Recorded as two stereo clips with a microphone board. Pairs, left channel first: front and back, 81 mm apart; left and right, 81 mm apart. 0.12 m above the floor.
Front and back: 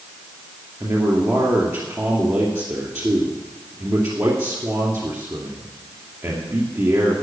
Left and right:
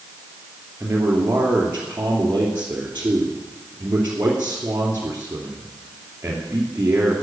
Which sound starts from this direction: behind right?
A man speaking, at 0.8 s.